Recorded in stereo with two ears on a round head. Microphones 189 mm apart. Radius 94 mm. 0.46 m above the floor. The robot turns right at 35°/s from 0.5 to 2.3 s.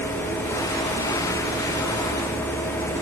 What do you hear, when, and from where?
Only background noise.